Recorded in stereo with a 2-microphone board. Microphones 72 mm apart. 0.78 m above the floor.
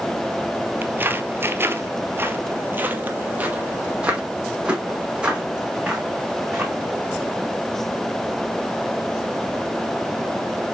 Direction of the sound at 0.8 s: 25° right (ahead or behind).